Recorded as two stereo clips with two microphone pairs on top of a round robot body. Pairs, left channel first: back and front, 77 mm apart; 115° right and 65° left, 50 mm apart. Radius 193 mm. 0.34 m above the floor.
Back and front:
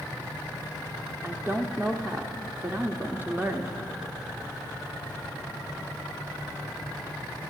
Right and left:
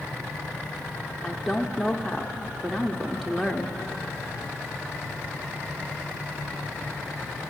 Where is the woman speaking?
40° right, 1.0 m.